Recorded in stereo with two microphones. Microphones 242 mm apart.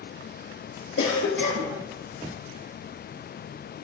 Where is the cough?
65° left (ahead or behind), 4.5 m.